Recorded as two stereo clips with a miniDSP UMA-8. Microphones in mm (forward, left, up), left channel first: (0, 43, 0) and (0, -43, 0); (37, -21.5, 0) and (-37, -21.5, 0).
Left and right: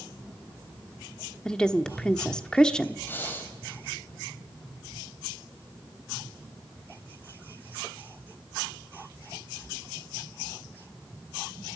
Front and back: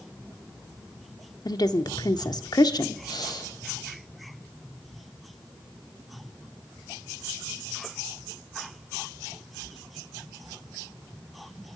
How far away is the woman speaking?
About 1.3 m.